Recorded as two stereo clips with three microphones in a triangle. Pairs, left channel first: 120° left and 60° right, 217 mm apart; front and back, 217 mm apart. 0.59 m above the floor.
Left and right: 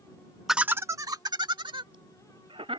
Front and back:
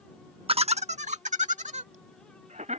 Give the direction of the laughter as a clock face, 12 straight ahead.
5 o'clock.